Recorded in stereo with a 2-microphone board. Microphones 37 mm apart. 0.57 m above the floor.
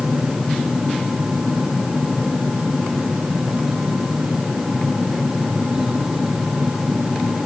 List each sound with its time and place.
Only background noise.